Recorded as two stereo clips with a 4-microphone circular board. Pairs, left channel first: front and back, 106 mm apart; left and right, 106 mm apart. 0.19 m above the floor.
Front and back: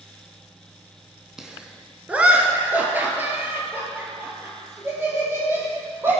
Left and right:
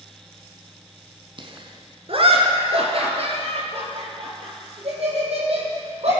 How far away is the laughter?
About 1.5 m.